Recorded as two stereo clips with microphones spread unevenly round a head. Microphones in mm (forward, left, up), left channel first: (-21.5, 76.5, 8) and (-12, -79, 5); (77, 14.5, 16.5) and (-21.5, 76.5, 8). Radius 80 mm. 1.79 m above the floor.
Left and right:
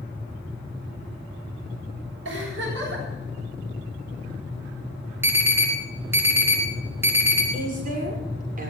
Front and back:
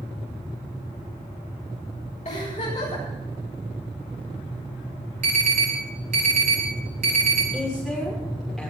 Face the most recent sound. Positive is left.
turn(degrees=-120)